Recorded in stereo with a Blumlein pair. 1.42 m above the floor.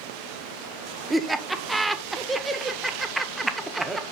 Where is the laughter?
5° right, 1.0 m.